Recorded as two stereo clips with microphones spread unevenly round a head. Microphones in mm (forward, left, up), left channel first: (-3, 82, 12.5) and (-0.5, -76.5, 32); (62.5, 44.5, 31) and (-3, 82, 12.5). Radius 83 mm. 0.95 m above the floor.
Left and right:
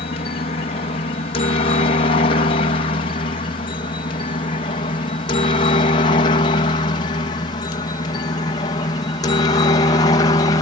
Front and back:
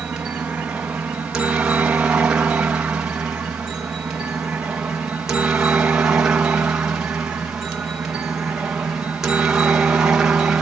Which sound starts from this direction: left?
A helicopter, at 0.0 s.